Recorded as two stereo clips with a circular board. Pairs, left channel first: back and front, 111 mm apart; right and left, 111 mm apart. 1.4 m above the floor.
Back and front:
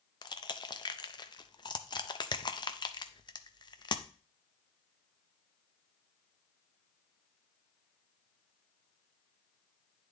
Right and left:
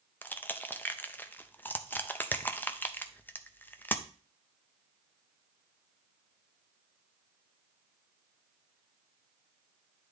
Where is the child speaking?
No child speaking in this recording.